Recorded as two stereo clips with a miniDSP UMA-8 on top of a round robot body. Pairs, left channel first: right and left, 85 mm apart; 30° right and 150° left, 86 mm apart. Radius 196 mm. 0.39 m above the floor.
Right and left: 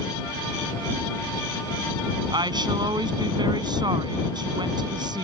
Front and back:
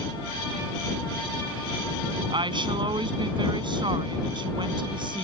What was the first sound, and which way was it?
A woman speaking, 125° left.